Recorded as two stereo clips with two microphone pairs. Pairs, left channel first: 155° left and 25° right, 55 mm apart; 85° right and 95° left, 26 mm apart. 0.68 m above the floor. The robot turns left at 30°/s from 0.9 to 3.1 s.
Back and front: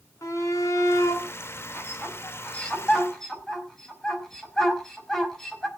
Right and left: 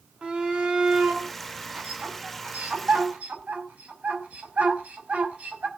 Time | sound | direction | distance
0.2 | a shout | 145° left | 6 m